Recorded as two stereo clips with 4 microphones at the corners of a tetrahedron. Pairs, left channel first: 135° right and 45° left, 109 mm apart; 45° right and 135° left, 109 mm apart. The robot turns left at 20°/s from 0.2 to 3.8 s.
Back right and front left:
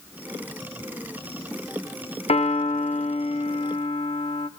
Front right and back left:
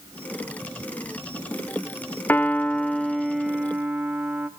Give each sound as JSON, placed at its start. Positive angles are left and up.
{"t": 2.3, "sound": "a piano", "azimuth_deg": -115, "distance_m": 0.6}